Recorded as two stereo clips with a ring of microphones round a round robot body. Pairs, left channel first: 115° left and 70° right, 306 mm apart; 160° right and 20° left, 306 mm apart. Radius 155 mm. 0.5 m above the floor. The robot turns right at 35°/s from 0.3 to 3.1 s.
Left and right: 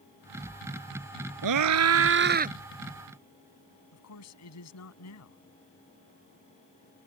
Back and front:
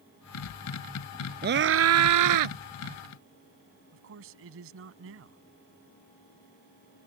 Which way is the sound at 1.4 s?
40° right.